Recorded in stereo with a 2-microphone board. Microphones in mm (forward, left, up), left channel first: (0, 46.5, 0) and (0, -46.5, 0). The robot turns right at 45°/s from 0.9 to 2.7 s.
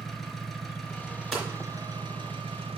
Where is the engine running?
175° left, 1.4 m; by 2.8 s 100° right, 1.4 m.